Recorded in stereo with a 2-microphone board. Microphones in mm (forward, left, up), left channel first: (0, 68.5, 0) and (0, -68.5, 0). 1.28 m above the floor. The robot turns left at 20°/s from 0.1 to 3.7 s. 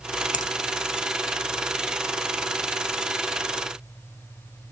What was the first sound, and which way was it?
A finger snap, 65° left (ahead or behind).